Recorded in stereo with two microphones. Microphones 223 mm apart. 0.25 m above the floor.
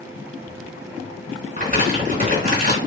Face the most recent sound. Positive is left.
turn(degrees=-40)  # may be behind; listen again after turning